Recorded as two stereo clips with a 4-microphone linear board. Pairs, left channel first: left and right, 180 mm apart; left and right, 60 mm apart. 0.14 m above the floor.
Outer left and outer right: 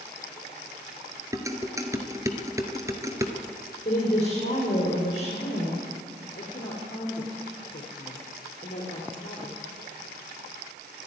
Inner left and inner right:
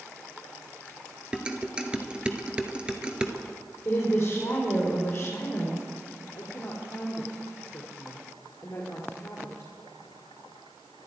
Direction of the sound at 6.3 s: 45° left (ahead or behind).